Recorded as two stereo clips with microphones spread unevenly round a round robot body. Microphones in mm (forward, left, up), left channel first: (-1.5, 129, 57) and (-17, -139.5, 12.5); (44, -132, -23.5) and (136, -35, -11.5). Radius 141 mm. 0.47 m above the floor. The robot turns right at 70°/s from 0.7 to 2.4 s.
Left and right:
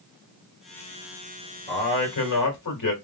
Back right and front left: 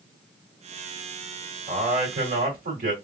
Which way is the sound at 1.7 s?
15° left.